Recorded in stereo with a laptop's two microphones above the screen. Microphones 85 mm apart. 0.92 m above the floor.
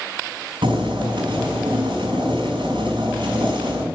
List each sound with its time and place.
0.6 s boiling: 90° right, 5.5 m